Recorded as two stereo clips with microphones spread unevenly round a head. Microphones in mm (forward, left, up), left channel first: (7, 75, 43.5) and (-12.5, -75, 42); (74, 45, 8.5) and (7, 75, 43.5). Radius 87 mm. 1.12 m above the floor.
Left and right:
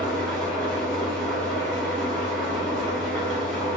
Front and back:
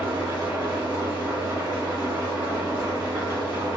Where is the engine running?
170° left, 1.7 m.